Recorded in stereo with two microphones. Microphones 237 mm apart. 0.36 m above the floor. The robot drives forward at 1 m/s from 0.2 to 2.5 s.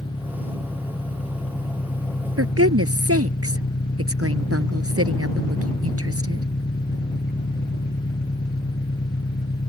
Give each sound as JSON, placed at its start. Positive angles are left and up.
{"t": 0.0, "sound": "an engine running", "side_deg": 25}
{"t": 2.4, "sound": "a woman speaking", "side_deg": -75}